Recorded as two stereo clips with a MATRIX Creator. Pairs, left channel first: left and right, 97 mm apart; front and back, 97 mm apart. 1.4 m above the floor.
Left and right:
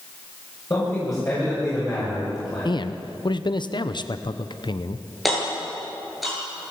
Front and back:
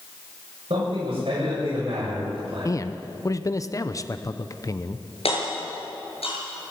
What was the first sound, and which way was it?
A man speaking, 150° left.